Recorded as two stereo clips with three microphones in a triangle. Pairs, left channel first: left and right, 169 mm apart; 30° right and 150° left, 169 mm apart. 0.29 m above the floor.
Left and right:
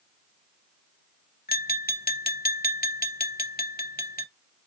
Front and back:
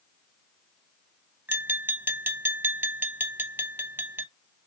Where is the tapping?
75° left, 0.6 m.